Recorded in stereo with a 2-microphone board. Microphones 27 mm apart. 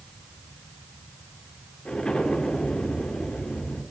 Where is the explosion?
35° left (ahead or behind), 4 m.